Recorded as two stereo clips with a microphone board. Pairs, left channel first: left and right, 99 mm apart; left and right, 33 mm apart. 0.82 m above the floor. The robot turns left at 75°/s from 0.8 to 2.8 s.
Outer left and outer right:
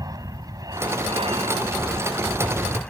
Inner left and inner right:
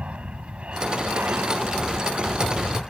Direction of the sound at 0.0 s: 40° right.